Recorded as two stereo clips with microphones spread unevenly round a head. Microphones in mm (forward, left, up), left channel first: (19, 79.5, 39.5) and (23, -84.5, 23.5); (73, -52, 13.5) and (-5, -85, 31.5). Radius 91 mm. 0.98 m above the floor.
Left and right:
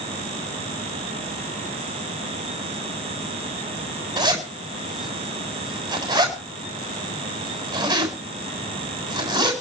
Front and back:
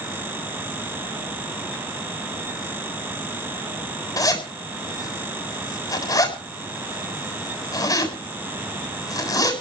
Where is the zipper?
20° right, 7.5 m.